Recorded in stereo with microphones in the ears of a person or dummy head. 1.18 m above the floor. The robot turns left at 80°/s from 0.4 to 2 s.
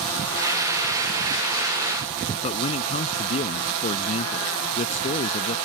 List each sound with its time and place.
2.4 s a man speaking: 35° left (ahead or behind)